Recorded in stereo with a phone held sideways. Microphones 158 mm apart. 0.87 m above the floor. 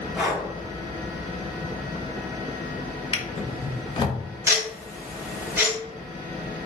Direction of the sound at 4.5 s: 20° right (ahead or behind).